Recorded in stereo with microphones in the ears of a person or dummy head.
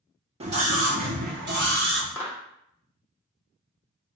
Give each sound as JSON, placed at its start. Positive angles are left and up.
{"t": 0.4, "sound": "a scream", "side_deg": -30, "distance_m": 0.7}
{"t": 2.1, "sound": "a clap", "side_deg": 15, "distance_m": 0.8}